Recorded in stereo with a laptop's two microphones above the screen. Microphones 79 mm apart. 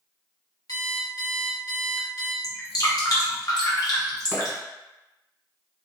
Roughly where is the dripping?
Left.